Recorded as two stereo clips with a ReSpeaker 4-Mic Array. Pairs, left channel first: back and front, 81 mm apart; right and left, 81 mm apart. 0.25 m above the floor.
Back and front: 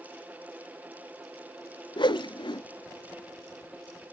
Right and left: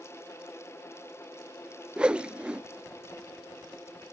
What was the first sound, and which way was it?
A whoosh, 165° left.